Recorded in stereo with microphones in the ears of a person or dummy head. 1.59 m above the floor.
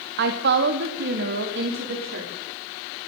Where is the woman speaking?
55° right (ahead or behind), 1.9 m; by 2.3 s 65° right (ahead or behind), 4 m.